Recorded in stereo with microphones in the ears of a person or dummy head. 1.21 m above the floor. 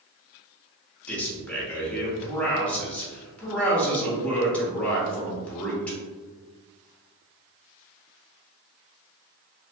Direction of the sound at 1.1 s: 10° left (ahead or behind).